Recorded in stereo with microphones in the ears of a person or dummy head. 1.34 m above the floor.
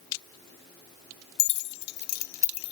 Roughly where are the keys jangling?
Left.